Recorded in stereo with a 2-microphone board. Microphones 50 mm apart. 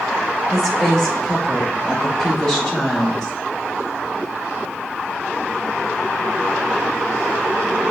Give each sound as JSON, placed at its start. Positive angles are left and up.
{"t": 0.5, "sound": "a woman speaking", "side_deg": 10, "distance_m": 2.0}